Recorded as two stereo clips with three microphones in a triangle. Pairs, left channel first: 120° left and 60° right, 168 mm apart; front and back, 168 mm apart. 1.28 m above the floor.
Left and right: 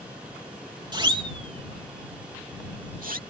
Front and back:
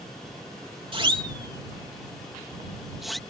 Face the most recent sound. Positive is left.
turn(degrees=-90)